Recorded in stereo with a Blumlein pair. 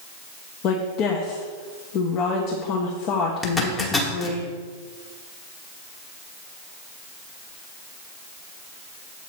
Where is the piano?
No piano in this recording.